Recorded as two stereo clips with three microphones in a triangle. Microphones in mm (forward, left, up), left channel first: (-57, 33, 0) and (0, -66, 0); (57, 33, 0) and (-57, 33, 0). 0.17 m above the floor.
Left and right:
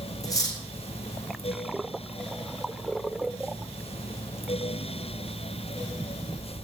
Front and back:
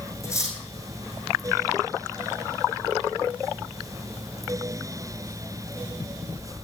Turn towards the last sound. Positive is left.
turn(degrees=65)